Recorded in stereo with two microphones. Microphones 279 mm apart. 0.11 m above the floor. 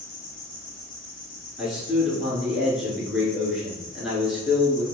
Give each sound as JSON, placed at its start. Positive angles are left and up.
{"t": 0.0, "sound": "an insect", "side_deg": 55, "distance_m": 1.2}
{"t": 1.6, "sound": "a man speaking", "side_deg": 0, "distance_m": 1.3}